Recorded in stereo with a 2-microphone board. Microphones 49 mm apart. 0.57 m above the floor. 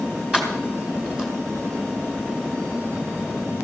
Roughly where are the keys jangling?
Centre.